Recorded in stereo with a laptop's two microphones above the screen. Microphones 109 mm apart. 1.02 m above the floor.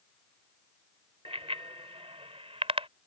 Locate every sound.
1.2 s a bicycle bell: 65° right (ahead or behind)